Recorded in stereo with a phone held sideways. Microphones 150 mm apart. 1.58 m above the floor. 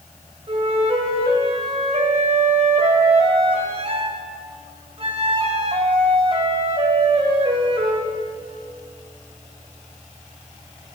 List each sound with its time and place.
0.5 s a flute: 45° right (ahead or behind), 1.8 m